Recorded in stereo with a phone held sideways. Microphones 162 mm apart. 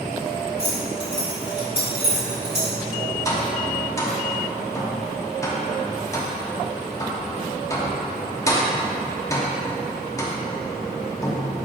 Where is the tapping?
20° left (ahead or behind), 1.2 m.